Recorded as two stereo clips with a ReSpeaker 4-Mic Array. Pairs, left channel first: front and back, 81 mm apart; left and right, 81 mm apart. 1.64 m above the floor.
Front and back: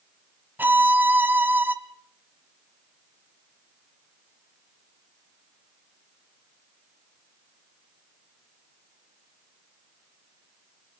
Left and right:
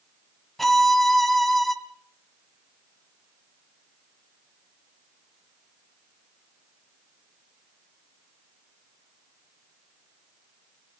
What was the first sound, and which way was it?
A violin, straight behind.